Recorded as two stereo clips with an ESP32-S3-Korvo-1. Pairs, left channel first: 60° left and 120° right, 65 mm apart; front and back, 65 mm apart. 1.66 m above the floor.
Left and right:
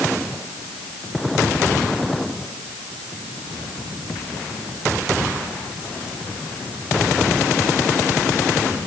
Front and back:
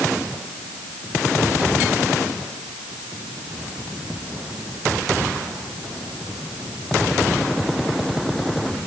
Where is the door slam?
No door slam in this recording.